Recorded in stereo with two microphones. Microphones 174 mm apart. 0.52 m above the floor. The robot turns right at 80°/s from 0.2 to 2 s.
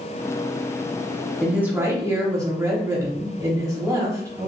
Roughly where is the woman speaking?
Centre.